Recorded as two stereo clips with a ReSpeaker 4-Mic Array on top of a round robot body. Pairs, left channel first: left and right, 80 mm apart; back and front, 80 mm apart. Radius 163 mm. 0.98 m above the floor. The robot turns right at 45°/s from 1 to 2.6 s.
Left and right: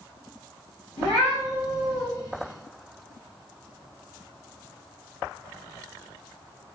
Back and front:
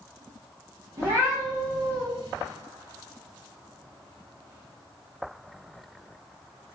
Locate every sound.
1.0 s a cat meowing: 55° left, 0.5 m; by 2.0 s 100° left, 0.5 m